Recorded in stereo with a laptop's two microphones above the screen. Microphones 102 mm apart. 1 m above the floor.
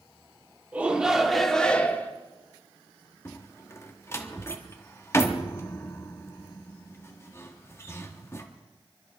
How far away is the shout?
About 3 m.